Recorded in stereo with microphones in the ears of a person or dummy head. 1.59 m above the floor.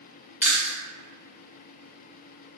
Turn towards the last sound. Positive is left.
turn(degrees=-10)  # may be behind; listen again after turning